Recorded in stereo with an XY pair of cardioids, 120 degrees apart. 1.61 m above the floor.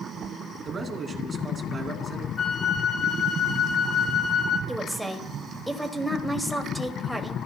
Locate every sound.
0.7 s a man speaking: 35° right, 2.5 m
2.4 s a flute: 40° left, 3.5 m
4.7 s a woman speaking: 5° right, 2 m